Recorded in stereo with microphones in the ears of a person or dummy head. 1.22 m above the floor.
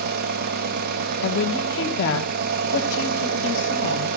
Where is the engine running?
55° right (ahead or behind), 0.9 m.